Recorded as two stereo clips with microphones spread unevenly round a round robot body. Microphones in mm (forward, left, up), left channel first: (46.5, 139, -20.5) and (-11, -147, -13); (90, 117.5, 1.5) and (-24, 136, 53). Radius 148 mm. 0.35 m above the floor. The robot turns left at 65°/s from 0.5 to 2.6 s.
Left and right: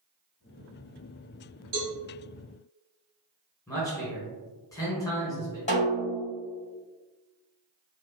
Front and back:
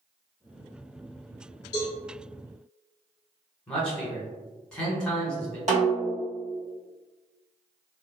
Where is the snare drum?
140° left, 1.3 m.